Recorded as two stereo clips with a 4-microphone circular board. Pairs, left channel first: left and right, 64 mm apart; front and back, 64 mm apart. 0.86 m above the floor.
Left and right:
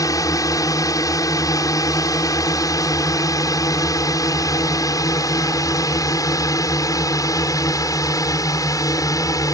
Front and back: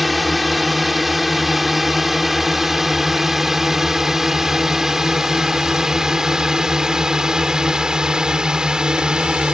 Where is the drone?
90° left; by 9.5 s 105° left.